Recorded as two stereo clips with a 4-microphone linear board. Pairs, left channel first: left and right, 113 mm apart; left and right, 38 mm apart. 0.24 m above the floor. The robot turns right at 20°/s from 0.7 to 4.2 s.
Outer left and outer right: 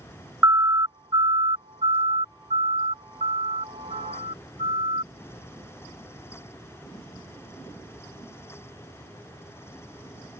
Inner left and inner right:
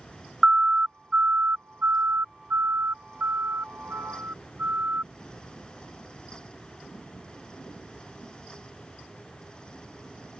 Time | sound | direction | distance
0.4 | a siren | 30° right (ahead or behind) | ?